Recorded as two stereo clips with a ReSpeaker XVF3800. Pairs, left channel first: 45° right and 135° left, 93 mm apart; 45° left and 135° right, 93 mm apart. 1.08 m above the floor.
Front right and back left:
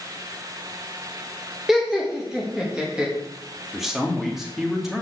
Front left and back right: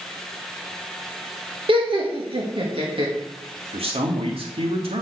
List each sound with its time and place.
1.7 s laughter: 140° right, 1.4 m; by 3.1 s 145° right, 2 m
3.7 s a man speaking: 140° right, 2 m